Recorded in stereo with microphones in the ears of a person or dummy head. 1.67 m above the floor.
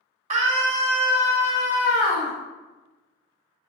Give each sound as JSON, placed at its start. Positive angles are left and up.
{"t": 0.3, "sound": "a scream", "side_deg": -40, "distance_m": 0.9}